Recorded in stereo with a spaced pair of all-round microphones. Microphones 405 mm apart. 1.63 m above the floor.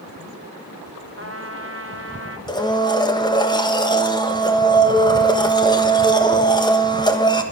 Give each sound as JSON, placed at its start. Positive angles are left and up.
{"t": 1.2, "sound": "a trumpet", "side_deg": -35, "distance_m": 1.1}
{"t": 2.5, "sound": "a blender", "side_deg": 10, "distance_m": 1.2}